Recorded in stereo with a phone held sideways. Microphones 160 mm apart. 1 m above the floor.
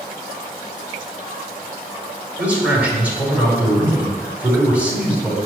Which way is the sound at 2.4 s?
10° right (ahead or behind).